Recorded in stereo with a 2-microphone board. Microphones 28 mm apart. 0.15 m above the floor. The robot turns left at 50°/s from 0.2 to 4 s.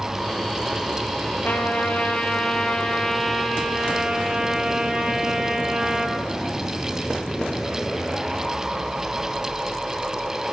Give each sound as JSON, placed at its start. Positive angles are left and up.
{"t": 1.4, "sound": "a trumpet", "azimuth_deg": 95, "distance_m": 3.5}